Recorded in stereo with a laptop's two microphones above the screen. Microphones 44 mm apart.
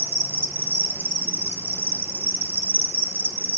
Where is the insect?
65° right (ahead or behind), 0.8 m.